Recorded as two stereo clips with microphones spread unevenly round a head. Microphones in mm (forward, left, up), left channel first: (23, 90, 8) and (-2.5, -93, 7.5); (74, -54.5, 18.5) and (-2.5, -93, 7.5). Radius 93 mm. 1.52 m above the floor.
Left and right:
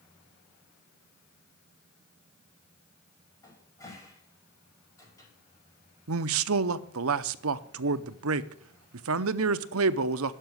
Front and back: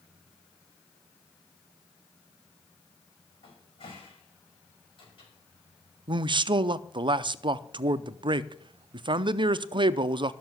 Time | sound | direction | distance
3.4 | a cupboard door | 10° left | 5 m
6.1 | a man speaking | 115° right | 0.6 m